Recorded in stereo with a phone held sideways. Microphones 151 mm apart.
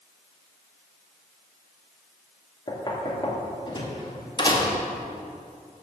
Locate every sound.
2.7 s knocking: 30° left (ahead or behind), 1.9 m